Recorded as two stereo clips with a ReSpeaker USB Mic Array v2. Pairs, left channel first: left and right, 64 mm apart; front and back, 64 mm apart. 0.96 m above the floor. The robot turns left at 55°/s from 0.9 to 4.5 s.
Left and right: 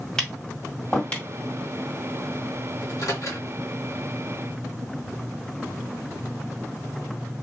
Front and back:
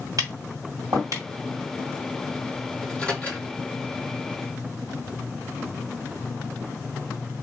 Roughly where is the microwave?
Left.